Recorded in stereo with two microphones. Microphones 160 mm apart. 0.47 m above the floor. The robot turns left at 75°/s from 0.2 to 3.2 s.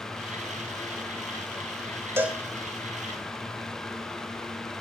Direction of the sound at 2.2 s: 15° right (ahead or behind).